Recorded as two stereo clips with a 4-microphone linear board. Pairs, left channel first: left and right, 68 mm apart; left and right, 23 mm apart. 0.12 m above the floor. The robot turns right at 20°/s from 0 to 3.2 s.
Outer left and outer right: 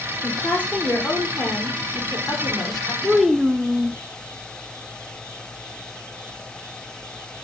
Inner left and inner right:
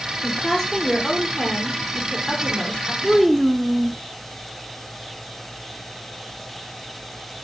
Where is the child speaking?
Centre (ahead or behind), 0.6 m.